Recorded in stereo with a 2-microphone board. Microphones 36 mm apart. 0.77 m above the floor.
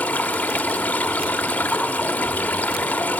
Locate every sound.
0.0 s running water: 45° left (ahead or behind), 1.3 m